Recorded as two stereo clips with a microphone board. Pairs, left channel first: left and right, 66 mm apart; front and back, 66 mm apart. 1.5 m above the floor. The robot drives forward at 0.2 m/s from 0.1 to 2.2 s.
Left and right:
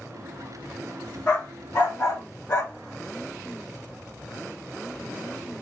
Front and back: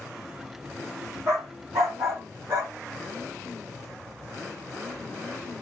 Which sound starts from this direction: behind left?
A dog barking, at 1.3 s.